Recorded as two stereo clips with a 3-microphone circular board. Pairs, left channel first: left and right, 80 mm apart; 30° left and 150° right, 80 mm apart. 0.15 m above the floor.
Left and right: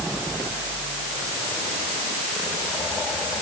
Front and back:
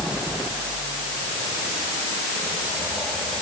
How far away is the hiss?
I don't hear a hiss.